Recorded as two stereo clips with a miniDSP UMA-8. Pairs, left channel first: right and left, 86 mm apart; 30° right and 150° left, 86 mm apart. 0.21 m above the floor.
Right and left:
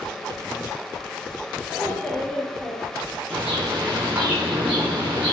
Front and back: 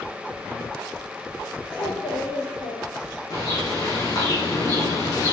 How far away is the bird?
About 5.5 m.